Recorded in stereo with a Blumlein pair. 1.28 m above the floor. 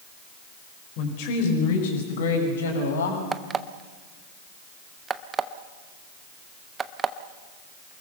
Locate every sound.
1.0 s a woman speaking: 45° left, 5.5 m; by 3.2 s 70° left, 7.5 m
3.3 s an alarm clock: 20° right, 0.9 m